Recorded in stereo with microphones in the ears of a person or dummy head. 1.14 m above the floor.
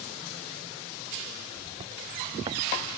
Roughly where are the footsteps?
Right.